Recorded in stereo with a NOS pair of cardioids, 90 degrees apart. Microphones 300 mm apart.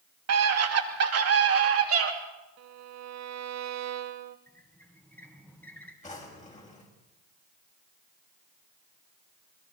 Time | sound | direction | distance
0.3 | a scream | 60° right | 3 m
2.6 | a violin | 65° right | 1.3 m
4.5 | a squeak | 5° left | 4 m
6.0 | a drawer | 25° left | 6 m